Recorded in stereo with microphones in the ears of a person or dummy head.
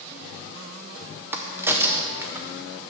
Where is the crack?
5° right (ahead or behind), 0.5 m.